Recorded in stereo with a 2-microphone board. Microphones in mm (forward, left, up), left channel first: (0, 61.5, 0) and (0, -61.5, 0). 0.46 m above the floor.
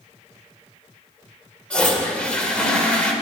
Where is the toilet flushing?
10° left (ahead or behind), 1.6 m.